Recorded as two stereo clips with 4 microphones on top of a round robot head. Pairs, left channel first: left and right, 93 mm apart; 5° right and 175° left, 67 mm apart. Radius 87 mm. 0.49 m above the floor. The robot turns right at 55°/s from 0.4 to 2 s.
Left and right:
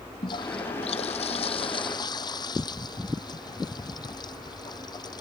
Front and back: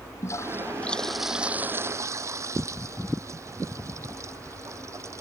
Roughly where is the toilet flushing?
Ahead left.